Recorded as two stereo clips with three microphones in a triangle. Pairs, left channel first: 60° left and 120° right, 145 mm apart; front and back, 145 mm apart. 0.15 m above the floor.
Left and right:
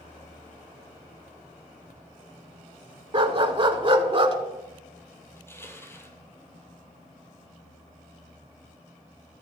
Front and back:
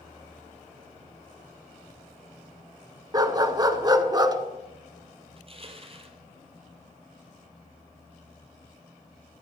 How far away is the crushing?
About 0.9 m.